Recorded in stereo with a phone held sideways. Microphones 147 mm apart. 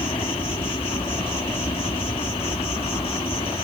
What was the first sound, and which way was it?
An insect, 40° left (ahead or behind).